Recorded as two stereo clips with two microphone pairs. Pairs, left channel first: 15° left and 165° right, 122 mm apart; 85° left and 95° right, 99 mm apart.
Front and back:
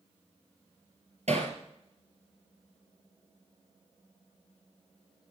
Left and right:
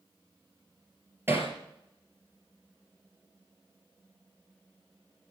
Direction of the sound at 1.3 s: 155° right.